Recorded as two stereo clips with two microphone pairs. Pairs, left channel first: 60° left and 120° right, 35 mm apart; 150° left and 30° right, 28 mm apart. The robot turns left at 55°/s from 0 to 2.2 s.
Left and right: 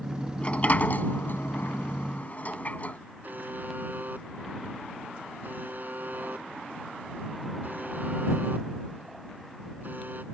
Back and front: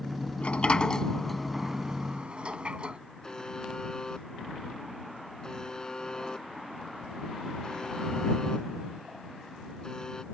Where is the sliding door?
120° left; by 3.0 s 20° left.